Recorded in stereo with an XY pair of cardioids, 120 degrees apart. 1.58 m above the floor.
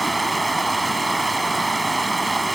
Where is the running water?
15° right.